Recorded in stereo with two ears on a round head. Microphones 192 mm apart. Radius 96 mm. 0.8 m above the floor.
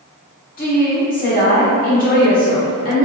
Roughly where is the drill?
I don't hear a drill.